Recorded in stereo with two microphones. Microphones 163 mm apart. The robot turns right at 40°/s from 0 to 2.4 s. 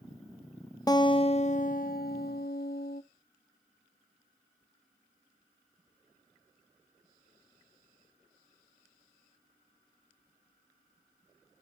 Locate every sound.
0.9 s a guitar: 25° left, 0.7 m; by 3.0 s 85° left, 0.7 m